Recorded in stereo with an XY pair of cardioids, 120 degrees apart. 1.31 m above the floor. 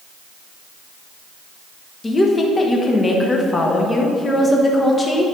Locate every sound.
2.0 s a woman speaking: 20° left, 1.1 m